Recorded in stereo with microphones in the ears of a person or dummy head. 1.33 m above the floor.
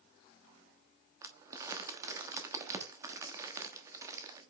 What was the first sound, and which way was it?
Crumpling, 20° right (ahead or behind).